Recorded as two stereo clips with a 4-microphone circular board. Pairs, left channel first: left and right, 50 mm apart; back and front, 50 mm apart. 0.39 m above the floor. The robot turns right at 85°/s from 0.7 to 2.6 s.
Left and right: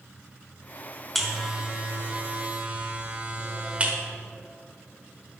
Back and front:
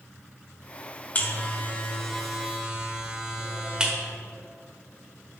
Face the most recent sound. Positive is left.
turn(degrees=-60)